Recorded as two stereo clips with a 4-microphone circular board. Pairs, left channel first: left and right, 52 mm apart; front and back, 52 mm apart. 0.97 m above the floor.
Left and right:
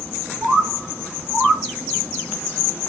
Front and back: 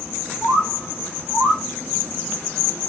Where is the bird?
140° right, 1.1 m.